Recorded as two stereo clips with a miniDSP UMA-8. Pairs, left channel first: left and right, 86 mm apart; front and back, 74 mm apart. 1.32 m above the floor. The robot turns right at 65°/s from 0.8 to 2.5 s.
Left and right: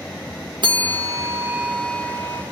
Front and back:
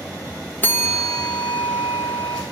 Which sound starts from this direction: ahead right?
A bell, at 0.6 s.